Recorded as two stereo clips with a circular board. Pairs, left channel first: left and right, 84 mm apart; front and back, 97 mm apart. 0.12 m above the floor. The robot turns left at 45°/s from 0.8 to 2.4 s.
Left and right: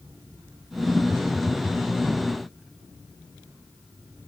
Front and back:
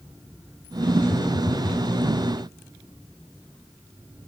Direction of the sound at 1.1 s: 30° left.